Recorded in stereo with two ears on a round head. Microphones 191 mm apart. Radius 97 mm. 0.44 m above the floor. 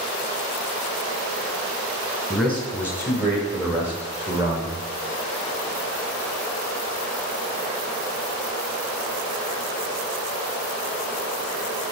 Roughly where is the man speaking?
Centre.